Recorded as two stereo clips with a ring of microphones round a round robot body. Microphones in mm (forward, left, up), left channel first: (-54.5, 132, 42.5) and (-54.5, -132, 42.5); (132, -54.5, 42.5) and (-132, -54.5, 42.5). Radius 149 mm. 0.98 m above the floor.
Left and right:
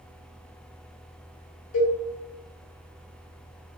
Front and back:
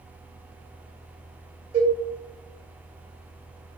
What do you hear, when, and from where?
1.7 s a cowbell: 115° left, 1.3 m